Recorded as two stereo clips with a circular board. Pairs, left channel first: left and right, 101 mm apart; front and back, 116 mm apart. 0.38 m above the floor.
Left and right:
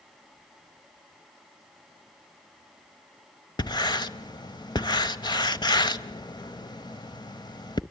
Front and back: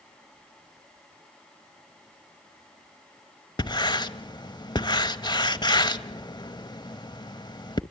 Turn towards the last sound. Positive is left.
turn(degrees=50)